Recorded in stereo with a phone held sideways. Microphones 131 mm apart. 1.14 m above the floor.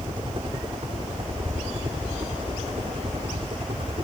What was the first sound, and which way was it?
A helicopter, 35° right (ahead or behind).